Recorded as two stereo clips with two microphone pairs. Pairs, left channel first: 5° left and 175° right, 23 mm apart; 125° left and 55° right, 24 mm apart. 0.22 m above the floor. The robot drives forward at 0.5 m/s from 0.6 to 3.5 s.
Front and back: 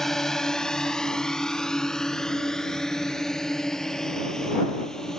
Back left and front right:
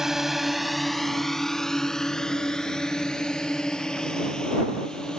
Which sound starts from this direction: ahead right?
A drone, at 0.0 s.